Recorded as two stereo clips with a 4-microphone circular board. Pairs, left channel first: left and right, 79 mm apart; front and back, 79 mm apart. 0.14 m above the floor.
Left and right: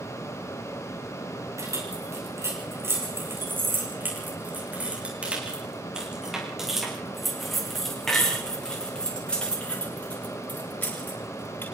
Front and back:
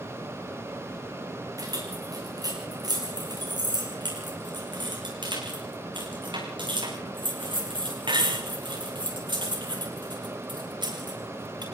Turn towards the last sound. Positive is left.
turn(degrees=155)